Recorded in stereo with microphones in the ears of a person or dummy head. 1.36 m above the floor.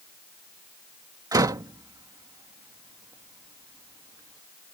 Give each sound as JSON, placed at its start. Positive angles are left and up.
{"t": 1.3, "sound": "a door slam", "side_deg": -15}